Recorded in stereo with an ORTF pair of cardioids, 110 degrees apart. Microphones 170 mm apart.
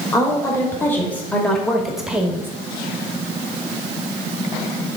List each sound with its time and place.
0.1 s a woman speaking: 20° left, 2.5 m; by 2.5 s 15° right, 1.5 m